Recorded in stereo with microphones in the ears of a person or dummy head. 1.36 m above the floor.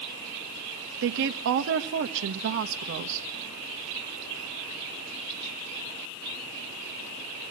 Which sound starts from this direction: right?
A woman speaking, at 1.0 s.